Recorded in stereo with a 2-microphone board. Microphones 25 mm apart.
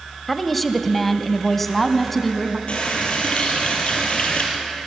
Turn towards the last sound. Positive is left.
turn(degrees=60)  # may be behind; listen again after turning